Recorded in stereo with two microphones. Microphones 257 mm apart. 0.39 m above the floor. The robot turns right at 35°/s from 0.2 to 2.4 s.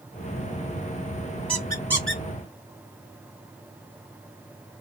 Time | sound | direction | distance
1.5 | a squeak | 20° left (ahead or behind) | 1.8 m